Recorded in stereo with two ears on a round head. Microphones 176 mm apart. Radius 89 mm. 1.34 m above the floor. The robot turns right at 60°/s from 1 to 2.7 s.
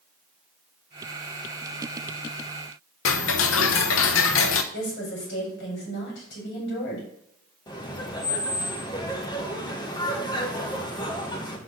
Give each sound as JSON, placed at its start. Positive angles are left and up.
{"t": 3.0, "sound": "ticking", "side_deg": 75, "distance_m": 0.8}
{"t": 4.7, "sound": "a woman speaking", "side_deg": 60, "distance_m": 5.0}
{"t": 7.7, "sound": "laughter", "side_deg": 20, "distance_m": 1.6}